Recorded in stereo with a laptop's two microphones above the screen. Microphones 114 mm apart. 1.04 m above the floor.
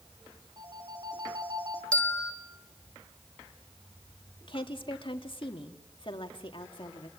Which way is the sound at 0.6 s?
35° right (ahead or behind).